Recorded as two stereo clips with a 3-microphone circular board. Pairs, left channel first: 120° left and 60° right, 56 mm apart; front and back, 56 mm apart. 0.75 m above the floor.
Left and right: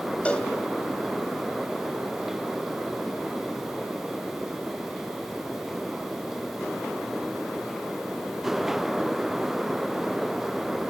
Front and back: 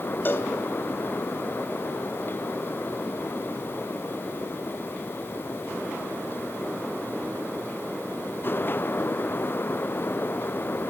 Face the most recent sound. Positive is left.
turn(degrees=50)